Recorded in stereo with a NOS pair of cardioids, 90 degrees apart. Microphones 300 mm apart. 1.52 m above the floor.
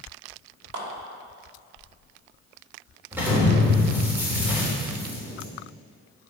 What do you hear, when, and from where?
0.7 s a clap: 60° right, 2.5 m
3.1 s an explosion: 5° right, 3 m